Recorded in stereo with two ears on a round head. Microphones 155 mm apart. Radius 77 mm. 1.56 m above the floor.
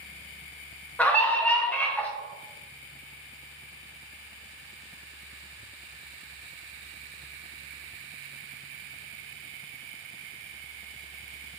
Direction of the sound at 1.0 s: 10° left (ahead or behind).